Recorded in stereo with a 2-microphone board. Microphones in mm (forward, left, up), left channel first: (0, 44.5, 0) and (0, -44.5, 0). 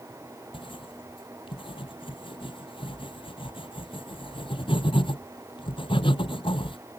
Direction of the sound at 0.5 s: 80° left.